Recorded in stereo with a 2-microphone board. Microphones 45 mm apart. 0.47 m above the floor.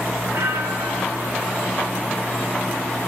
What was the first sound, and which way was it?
A bell, 80° right.